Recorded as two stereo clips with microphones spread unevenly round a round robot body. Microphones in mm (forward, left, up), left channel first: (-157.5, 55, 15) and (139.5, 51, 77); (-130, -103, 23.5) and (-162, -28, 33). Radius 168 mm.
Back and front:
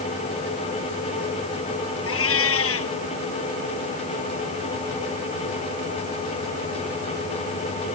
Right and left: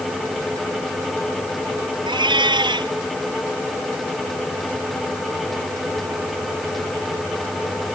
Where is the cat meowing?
135° left.